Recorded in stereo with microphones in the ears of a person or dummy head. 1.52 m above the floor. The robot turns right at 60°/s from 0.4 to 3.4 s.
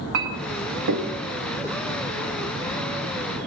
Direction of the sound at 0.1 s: 60° right (ahead or behind).